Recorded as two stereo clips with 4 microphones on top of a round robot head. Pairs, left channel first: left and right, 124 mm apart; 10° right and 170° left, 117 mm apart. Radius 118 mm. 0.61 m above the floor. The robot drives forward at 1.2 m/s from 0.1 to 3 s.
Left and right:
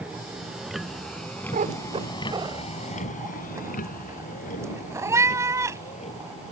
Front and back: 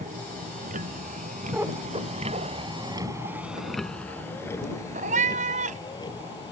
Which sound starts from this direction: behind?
A vehicle, at 0.0 s.